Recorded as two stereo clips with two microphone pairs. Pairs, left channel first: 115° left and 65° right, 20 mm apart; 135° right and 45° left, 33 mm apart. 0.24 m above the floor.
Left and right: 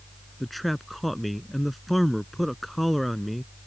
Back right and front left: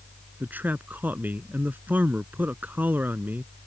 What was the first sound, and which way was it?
A man speaking, 30° left.